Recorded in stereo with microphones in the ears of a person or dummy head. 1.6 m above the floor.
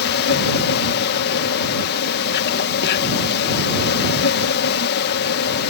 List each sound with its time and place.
0.0 s an insect: 65° left (ahead or behind)